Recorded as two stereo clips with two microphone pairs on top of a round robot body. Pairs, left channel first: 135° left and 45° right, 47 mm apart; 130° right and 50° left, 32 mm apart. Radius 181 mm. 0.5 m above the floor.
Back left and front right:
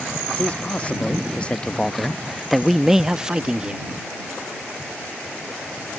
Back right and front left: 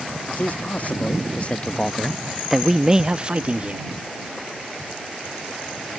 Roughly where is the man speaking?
Behind right.